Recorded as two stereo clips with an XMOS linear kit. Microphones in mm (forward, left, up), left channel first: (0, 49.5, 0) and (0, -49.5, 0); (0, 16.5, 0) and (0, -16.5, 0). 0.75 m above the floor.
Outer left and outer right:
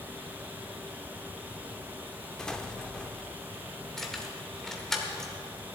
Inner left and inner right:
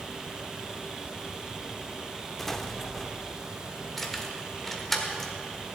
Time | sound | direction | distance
2.4 | an explosion | 10° left (ahead or behind) | 0.7 m
4.0 | keys jangling | 5° left (ahead or behind) | 1.6 m